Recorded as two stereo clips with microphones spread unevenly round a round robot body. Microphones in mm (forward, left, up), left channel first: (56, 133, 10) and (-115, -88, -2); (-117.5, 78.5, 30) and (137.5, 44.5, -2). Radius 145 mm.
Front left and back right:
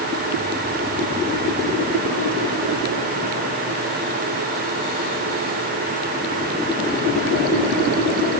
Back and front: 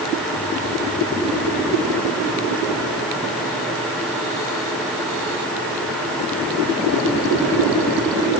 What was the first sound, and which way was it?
Only background noise.